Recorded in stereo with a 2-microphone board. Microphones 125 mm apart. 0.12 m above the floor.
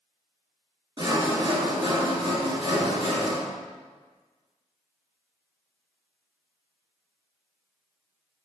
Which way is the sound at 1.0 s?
40° right (ahead or behind).